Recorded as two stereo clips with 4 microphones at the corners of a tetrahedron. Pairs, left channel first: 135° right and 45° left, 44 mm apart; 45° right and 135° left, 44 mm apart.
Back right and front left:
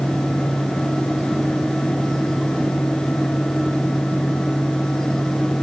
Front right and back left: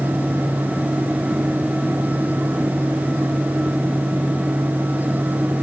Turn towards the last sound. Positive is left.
No sound to turn to.